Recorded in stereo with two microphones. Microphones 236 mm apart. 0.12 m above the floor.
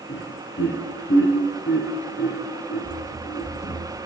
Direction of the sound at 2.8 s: 15° left (ahead or behind).